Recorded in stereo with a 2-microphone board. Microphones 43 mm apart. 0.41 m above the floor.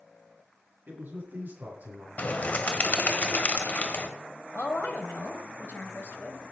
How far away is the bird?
About 1.5 m.